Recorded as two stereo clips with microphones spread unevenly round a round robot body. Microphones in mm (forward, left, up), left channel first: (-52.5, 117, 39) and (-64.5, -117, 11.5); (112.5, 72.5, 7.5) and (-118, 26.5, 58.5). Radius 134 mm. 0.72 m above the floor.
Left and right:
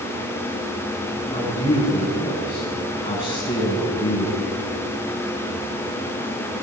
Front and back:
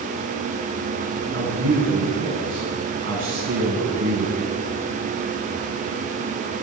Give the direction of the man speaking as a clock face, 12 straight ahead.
7 o'clock.